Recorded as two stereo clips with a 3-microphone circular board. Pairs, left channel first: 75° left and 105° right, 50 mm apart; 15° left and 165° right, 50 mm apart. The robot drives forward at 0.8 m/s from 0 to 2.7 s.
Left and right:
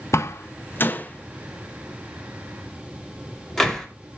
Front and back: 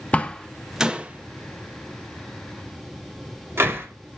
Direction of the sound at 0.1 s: 75° left.